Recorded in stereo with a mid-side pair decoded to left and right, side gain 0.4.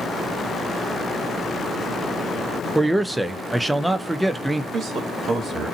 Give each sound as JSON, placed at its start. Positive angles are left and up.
{"t": 2.8, "sound": "a man speaking", "azimuth_deg": -15, "distance_m": 0.6}
{"t": 4.7, "sound": "a man speaking", "azimuth_deg": -50, "distance_m": 1.4}